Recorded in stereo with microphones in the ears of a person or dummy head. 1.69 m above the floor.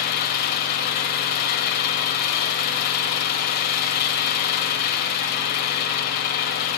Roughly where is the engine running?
Left.